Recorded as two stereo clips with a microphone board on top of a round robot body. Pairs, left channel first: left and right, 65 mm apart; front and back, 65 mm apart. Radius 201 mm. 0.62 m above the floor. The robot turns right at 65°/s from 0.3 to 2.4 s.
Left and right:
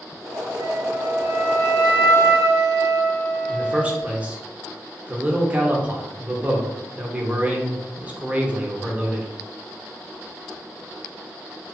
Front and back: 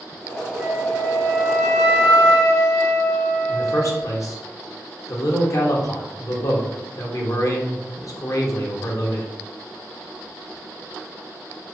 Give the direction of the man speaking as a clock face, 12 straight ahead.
1 o'clock.